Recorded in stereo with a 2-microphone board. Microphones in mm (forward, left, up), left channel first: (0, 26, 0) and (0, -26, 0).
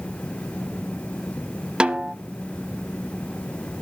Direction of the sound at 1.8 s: 20° right (ahead or behind).